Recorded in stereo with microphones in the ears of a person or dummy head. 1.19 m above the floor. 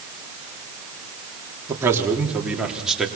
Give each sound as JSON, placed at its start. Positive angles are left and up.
{"t": 1.7, "sound": "a man speaking", "side_deg": -20, "distance_m": 3.5}